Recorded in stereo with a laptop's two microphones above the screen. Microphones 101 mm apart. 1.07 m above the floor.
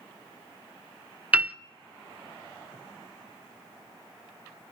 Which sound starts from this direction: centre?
A piano, at 1.3 s.